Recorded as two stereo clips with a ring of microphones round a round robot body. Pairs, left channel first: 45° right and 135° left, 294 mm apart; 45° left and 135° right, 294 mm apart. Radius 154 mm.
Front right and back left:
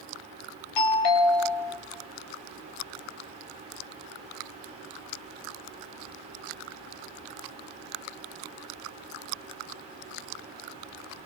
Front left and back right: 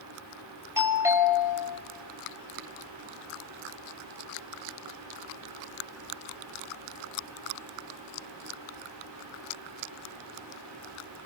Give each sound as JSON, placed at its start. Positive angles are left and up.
{"t": 0.8, "sound": "a doorbell", "azimuth_deg": -55, "distance_m": 5.5}